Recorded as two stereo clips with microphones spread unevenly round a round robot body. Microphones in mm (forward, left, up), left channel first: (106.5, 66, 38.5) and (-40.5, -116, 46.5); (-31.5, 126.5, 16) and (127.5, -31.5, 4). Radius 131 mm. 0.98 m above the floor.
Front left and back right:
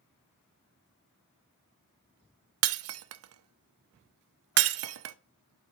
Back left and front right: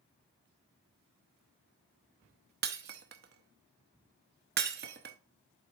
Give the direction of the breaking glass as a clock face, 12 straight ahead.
3 o'clock.